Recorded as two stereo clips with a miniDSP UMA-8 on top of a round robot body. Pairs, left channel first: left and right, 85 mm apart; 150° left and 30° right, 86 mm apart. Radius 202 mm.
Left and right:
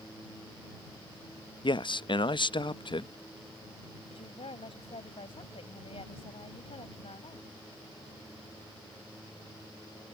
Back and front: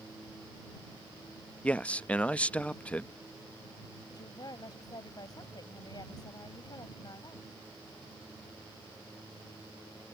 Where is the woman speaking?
105° left.